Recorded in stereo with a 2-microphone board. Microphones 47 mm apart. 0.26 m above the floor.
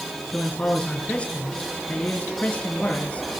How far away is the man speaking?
About 4.5 m.